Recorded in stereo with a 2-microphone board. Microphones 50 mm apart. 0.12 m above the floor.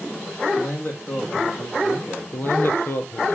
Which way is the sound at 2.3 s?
55° left (ahead or behind).